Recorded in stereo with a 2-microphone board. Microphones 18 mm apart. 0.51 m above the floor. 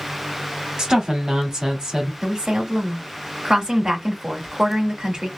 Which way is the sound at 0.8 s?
40° right (ahead or behind).